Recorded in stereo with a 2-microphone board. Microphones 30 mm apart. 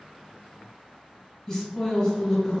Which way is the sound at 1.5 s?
20° left (ahead or behind).